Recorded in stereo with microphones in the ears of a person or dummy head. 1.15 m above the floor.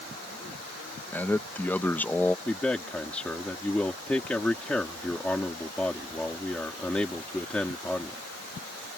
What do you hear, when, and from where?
1.1 s a man speaking: 10° left (ahead or behind)
2.5 s a man speaking: 5° left (ahead or behind)